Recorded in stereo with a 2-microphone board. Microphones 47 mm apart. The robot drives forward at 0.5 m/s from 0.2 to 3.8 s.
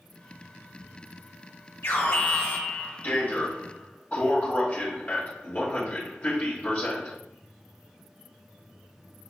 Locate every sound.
1.8 s an alarm: 60° left (ahead or behind), 1.2 m; by 7.2 s 35° left (ahead or behind), 1.9 m